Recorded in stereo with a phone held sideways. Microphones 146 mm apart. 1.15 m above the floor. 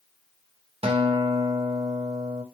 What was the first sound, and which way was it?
A guitar, 40° right (ahead or behind).